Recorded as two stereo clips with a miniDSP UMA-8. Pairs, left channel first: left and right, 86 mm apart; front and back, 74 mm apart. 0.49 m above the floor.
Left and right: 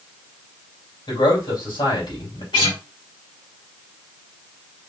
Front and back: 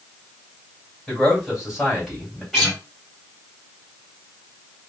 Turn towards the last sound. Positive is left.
turn(degrees=95)